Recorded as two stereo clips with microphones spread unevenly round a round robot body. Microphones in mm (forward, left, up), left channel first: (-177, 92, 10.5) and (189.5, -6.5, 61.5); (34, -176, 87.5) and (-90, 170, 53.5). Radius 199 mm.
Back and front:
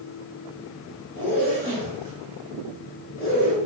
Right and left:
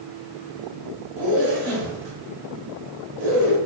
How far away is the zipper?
About 1.2 m.